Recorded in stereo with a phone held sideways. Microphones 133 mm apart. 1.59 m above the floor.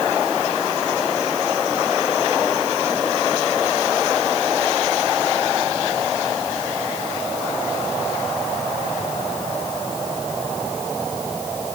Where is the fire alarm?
No fire alarm in this recording.